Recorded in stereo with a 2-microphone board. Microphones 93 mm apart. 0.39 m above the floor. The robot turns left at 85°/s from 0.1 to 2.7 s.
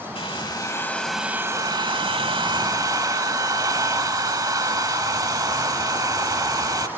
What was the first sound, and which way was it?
A hair dryer, 80° left.